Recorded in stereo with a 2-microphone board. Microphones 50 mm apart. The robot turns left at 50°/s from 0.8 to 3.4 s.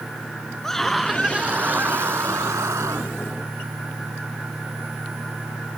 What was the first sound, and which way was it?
A scream, 10° left.